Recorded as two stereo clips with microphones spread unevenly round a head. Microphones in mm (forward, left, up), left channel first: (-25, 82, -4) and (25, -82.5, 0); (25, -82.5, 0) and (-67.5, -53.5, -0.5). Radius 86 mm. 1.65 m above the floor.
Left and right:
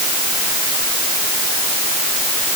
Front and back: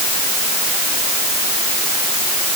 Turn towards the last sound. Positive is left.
No sound to turn to.